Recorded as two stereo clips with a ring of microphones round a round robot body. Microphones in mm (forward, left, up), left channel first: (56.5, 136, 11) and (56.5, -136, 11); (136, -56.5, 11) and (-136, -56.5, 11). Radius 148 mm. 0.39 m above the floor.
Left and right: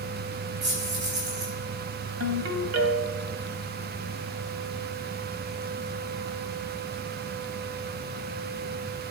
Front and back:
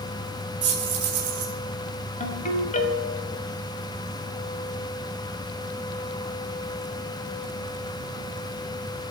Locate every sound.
0.6 s keys jangling: 145° right, 4 m
2.2 s a ringtone: 60° right, 1.7 m